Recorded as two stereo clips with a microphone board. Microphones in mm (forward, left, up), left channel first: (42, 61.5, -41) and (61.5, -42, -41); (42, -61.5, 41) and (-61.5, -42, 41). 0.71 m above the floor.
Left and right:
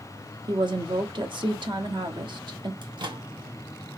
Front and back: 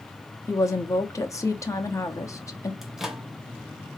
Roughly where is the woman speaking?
Ahead right.